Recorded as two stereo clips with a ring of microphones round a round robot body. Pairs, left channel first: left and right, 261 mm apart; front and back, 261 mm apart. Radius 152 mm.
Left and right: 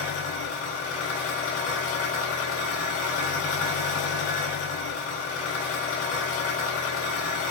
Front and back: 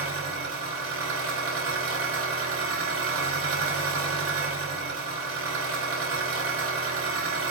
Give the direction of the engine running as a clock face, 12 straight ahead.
7 o'clock.